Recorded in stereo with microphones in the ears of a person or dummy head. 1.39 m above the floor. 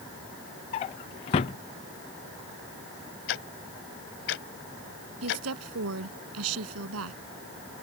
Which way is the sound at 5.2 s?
90° right.